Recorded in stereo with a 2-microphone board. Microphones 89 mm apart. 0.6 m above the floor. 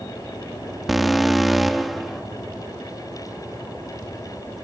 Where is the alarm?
Centre (ahead or behind), 0.8 m.